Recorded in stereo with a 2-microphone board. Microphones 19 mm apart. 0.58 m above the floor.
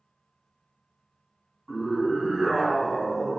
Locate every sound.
1.7 s a scream: 10° left (ahead or behind), 4.5 m; by 3.4 s 10° right (ahead or behind), 5 m